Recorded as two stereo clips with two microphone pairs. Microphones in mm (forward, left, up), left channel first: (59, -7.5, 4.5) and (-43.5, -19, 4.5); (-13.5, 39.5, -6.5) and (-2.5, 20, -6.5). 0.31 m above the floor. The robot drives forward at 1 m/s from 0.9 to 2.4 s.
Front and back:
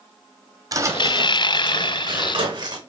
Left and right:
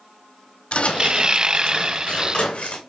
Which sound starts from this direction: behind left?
Footsteps, at 0.7 s.